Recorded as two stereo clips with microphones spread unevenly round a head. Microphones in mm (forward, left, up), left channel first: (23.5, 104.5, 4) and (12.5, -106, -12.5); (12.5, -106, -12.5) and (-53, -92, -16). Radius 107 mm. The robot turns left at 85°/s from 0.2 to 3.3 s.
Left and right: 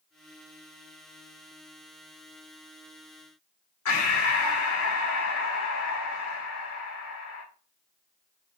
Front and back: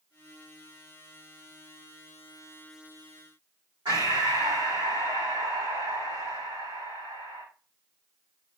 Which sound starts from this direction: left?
Breathing, at 3.9 s.